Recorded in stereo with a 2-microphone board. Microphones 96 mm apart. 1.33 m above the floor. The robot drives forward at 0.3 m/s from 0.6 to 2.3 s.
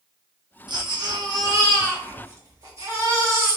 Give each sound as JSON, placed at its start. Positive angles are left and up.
{"t": 0.7, "sound": "a baby crying", "side_deg": -50, "distance_m": 0.7}